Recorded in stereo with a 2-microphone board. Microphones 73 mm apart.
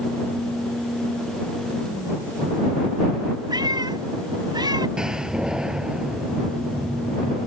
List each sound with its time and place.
3.5 s a cat meowing: 80° right
5.0 s a door slam: 10° right (ahead or behind)